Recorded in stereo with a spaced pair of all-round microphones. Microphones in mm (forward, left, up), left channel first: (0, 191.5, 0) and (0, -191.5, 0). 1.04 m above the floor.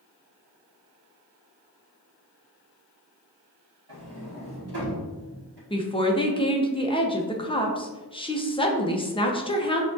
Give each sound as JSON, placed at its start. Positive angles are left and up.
{"t": 3.9, "sound": "a sliding door", "side_deg": -80, "distance_m": 1.5}
{"t": 5.7, "sound": "a woman speaking", "side_deg": 15, "distance_m": 0.6}